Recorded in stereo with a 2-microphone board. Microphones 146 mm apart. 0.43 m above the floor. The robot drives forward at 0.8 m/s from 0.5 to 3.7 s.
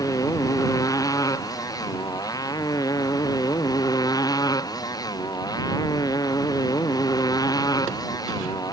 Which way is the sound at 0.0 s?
25° left (ahead or behind).